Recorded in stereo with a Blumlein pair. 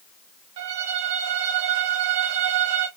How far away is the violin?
About 0.8 m.